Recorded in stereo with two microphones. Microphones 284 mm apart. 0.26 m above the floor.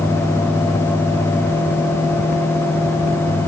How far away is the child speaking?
I don't hear a child speaking.